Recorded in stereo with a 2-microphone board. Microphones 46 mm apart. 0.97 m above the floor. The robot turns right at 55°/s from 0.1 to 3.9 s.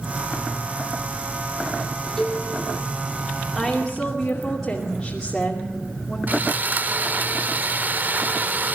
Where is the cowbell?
10° left (ahead or behind), 5 m; by 2.4 s 5° right (ahead or behind), 5 m.